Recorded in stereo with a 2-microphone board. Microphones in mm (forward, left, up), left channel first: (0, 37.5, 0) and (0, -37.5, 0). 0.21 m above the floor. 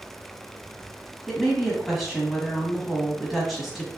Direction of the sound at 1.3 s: Centre (ahead or behind).